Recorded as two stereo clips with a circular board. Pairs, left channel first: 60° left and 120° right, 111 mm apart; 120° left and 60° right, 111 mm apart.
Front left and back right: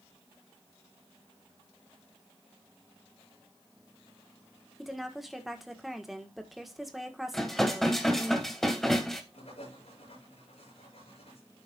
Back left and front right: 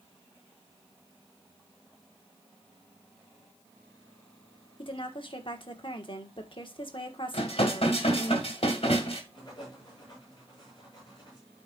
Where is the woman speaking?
150° left, 1.4 m.